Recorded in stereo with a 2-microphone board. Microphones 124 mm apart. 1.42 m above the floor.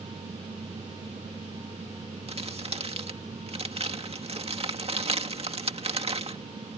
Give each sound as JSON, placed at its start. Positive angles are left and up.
{"t": 2.3, "sound": "crumpling", "side_deg": -50}